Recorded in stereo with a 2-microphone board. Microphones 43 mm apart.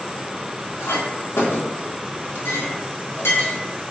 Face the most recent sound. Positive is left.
turn(degrees=75)  # may be behind; listen again after turning